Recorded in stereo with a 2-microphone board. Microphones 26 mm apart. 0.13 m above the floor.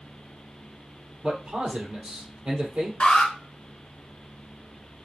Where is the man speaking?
55° right (ahead or behind), 3 m.